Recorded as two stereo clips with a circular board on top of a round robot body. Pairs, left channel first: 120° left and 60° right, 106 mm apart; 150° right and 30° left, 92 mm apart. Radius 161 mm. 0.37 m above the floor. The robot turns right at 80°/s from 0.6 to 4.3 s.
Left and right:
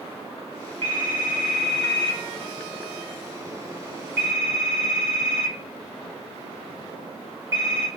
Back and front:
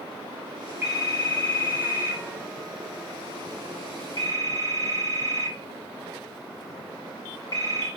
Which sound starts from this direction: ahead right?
A phone ringing, at 0.8 s.